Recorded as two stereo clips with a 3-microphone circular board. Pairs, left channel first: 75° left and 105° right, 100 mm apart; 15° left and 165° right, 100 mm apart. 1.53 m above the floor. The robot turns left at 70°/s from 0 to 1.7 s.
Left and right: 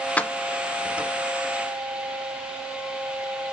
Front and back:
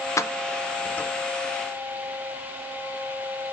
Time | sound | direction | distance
0.2 | keys jangling | 15° left | 0.5 m